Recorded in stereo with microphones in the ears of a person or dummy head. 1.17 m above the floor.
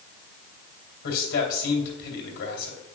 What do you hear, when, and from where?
1.0 s a man speaking: 55° left (ahead or behind), 3 m